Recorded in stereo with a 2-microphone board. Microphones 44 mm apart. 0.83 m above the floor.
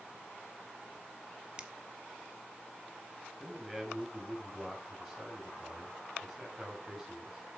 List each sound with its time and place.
1.6 s a finger snap: 20° right (ahead or behind), 1.2 m
3.4 s a man speaking: 5° right (ahead or behind), 6 m